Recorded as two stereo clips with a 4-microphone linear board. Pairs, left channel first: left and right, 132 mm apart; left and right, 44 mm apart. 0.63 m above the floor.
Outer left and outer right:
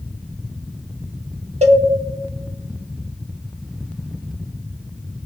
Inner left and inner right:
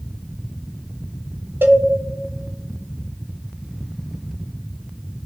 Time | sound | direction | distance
1.6 | a cowbell | 55° right (ahead or behind) | 1.0 m